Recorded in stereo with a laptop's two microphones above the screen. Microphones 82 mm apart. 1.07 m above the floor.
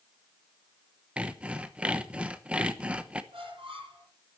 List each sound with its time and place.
1.2 s sawing: 15° right (ahead or behind), 0.9 m
3.3 s a squeak: 85° right, 8 m